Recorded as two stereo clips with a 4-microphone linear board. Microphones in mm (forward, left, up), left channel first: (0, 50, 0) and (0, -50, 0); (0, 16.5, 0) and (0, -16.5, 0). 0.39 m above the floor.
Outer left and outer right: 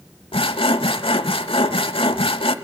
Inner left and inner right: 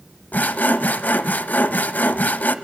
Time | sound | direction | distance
0.3 | sawing | 70° left (ahead or behind) | 0.8 m